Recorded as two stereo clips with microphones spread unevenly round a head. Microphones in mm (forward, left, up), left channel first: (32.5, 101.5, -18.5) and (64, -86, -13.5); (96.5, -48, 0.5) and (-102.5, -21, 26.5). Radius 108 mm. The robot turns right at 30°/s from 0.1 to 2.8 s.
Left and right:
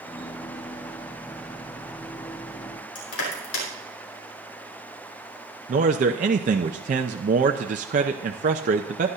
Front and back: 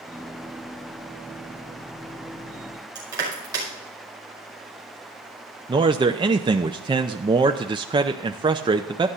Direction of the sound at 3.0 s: 95° left.